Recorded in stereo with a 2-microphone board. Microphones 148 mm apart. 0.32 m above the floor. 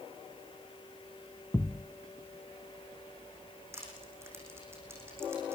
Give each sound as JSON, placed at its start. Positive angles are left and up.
{"t": 1.5, "sound": "a thud", "side_deg": 20, "distance_m": 0.7}
{"t": 3.7, "sound": "crushing", "side_deg": -15, "distance_m": 8.5}